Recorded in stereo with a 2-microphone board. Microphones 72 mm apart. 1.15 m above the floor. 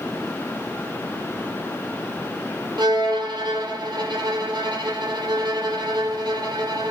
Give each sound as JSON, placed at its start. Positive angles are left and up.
{"t": 2.8, "sound": "a violin", "side_deg": -80, "distance_m": 3.5}